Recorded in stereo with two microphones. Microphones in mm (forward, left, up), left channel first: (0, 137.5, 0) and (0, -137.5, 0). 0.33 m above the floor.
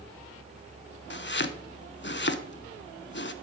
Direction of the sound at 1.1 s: 45° left (ahead or behind).